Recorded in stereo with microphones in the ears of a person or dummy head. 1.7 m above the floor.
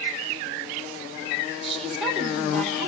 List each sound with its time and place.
1.6 s a woman speaking: 5° left (ahead or behind), 2.5 m